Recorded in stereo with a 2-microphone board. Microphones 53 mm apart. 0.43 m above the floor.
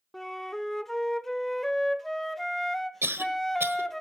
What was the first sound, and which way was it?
A flute, 5° left (ahead or behind).